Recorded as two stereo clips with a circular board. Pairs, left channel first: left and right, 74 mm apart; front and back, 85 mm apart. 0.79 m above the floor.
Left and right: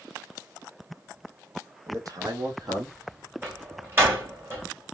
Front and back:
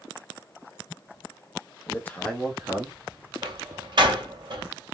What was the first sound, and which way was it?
A man speaking, 55° right.